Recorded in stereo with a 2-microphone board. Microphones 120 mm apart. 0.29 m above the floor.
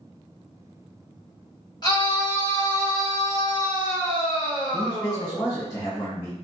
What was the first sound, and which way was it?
A scream, 35° left (ahead or behind).